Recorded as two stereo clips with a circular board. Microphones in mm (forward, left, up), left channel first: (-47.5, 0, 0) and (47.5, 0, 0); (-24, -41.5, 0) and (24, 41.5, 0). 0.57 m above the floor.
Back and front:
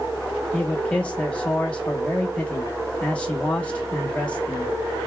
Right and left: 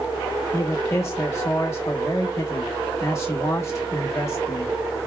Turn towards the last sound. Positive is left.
turn(degrees=-120)